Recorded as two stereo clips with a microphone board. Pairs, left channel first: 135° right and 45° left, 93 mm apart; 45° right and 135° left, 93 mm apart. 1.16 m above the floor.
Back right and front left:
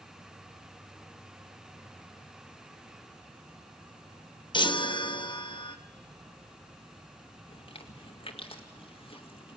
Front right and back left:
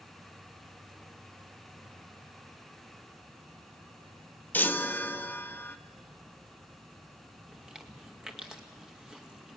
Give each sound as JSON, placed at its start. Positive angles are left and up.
{"t": 0.0, "sound": "an insect", "azimuth_deg": 75, "distance_m": 4.5}
{"t": 4.5, "sound": "a chime", "azimuth_deg": -115, "distance_m": 0.9}
{"t": 7.5, "sound": "chewing", "azimuth_deg": -145, "distance_m": 2.0}